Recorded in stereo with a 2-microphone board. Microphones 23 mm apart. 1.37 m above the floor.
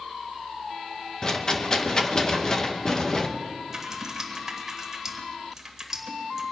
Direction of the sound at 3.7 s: 15° right (ahead or behind).